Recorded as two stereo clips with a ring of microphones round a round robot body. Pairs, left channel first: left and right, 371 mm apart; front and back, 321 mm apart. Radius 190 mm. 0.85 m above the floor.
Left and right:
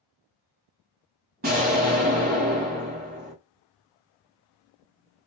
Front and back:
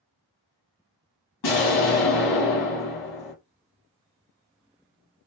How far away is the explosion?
About 1.5 m.